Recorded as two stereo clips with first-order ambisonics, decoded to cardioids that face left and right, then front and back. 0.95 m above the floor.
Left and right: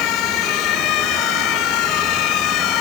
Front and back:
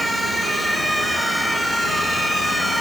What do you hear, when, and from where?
Only background noise.